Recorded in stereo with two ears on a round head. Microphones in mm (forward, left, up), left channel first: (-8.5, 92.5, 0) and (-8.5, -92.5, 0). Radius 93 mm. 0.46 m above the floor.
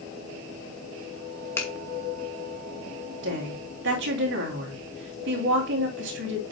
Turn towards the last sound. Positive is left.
turn(degrees=-65)  # may be behind; listen again after turning